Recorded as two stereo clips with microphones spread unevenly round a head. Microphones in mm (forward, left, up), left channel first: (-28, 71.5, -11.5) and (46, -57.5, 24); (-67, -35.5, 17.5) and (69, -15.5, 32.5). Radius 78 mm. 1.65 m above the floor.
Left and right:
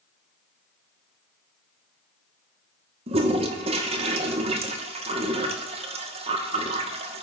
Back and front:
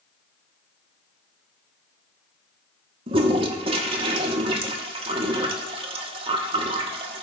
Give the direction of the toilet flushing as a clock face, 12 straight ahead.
1 o'clock.